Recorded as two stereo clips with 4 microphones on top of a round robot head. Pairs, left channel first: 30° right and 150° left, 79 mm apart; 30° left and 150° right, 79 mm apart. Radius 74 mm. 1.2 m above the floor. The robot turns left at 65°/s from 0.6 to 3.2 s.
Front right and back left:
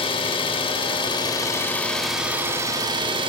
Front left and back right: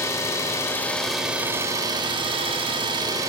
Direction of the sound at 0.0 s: 25° right.